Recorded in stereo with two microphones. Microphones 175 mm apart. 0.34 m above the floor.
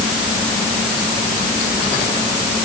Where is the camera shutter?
I don't hear a camera shutter.